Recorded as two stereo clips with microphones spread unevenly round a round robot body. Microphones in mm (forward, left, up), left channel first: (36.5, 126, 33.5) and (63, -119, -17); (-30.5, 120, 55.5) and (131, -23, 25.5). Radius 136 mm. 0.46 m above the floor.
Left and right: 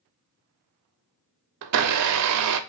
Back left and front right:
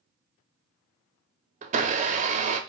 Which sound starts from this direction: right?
A blender, at 1.6 s.